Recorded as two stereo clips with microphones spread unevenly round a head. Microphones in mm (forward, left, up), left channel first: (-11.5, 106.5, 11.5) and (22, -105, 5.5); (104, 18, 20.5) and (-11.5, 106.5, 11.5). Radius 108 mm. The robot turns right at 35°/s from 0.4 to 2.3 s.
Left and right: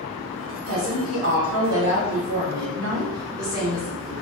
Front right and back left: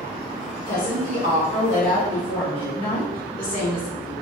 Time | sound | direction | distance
0.7 | a woman speaking | 105° right | 1.3 m